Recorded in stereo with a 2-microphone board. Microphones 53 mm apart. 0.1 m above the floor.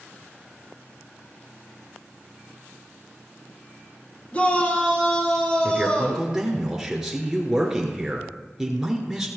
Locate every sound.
4.3 s a shout: 30° left (ahead or behind), 2.5 m; by 6.3 s 20° left (ahead or behind), 3.5 m
5.6 s a man speaking: 10° right (ahead or behind), 1.2 m